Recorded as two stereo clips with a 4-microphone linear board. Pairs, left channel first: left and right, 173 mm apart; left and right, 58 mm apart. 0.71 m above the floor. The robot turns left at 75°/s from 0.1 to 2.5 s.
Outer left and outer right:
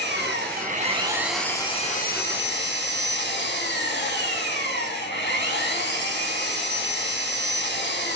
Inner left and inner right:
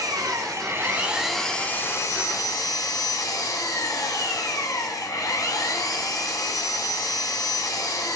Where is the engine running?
85° right, 3 m; by 8.2 s 95° left, 3 m.